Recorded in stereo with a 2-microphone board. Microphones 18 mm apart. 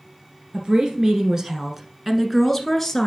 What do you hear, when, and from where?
0.5 s a woman speaking: 50° right (ahead or behind), 1.6 m; by 3.1 s 15° left (ahead or behind), 1.5 m